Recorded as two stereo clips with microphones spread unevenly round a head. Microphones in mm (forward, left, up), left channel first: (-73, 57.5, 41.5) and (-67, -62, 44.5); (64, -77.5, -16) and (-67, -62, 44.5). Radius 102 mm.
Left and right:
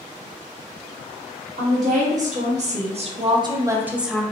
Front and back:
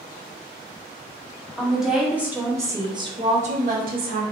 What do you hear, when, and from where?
1.6 s a woman speaking: 90° right, 1.3 m; by 4.2 s straight behind, 0.7 m